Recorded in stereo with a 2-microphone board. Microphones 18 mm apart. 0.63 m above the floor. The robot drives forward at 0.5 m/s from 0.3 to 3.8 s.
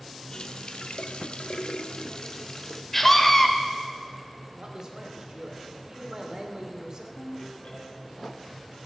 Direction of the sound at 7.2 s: 65° left (ahead or behind).